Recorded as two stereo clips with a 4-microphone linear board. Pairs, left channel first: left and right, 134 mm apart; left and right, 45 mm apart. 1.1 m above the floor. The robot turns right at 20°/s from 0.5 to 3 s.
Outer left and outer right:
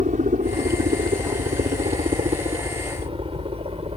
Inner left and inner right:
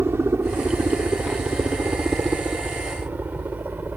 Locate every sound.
0.0 s a helicopter: 65° right (ahead or behind); by 4.0 s 45° right (ahead or behind)